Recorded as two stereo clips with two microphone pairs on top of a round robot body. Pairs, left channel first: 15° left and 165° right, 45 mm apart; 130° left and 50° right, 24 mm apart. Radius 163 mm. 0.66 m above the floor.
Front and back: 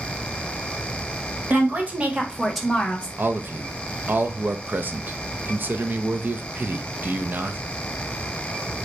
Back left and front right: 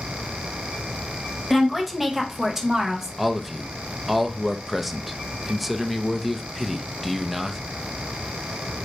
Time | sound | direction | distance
1.5 | a woman speaking | 145° right | 1.3 m
3.2 | a man speaking | 140° right | 0.7 m